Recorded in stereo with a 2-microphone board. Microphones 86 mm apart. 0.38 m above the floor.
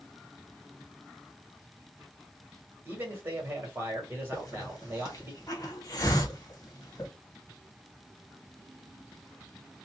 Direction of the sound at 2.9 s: 25° right (ahead or behind).